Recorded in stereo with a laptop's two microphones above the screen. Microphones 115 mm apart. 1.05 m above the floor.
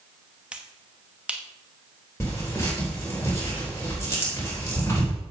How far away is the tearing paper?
About 4 m.